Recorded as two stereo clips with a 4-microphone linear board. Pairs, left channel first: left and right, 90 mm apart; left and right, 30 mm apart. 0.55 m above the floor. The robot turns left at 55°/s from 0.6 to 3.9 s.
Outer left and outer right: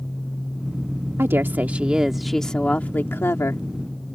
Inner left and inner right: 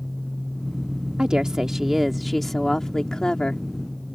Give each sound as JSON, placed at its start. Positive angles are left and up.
{"t": 1.2, "sound": "a woman speaking", "azimuth_deg": -120}